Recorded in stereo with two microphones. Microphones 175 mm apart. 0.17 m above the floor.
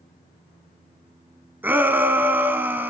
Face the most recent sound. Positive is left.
turn(degrees=-10)  # may be behind; listen again after turning